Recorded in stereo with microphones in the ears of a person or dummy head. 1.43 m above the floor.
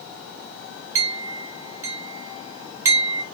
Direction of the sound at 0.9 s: 15° right (ahead or behind).